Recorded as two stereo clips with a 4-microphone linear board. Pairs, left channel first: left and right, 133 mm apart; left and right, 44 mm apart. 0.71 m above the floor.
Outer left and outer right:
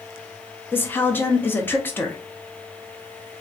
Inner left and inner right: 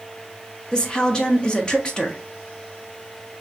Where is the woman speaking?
15° left (ahead or behind), 0.6 m.